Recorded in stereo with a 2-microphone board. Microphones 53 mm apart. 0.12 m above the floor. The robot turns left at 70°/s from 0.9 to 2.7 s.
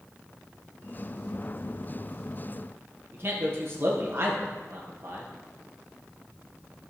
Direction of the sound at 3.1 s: 45° right (ahead or behind).